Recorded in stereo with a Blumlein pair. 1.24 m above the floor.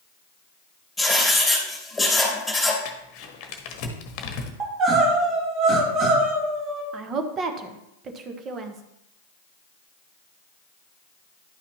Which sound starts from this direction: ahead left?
Crumpling, at 2.9 s.